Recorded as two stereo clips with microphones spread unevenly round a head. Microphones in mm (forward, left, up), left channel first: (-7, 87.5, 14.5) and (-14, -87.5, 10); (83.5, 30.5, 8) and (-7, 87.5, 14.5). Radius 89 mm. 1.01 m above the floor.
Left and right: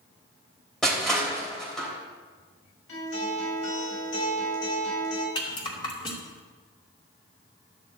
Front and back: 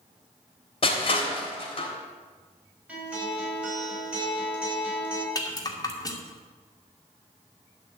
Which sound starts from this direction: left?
A guitar, at 2.9 s.